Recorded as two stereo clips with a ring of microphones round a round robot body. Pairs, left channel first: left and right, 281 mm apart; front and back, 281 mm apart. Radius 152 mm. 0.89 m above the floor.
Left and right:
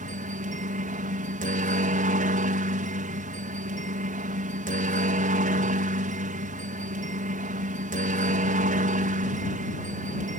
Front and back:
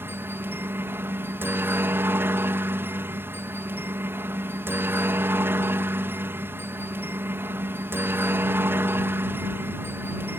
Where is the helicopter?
105° right.